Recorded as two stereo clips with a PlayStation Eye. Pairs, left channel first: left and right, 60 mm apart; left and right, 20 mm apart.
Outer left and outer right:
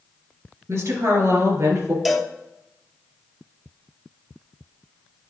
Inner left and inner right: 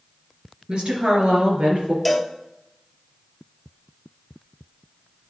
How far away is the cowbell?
About 0.8 m.